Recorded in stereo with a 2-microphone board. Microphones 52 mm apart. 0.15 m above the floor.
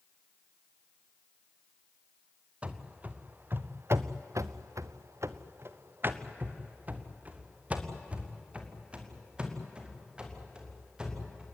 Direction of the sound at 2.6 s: 25° right (ahead or behind).